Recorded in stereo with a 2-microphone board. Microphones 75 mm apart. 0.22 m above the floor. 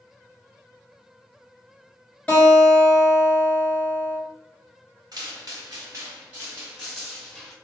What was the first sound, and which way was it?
A guitar, 20° left (ahead or behind).